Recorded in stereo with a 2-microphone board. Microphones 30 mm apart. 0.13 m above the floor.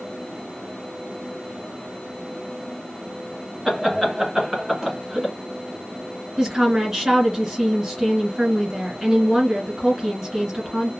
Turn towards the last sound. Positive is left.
turn(degrees=-20)  # may be behind; listen again after turning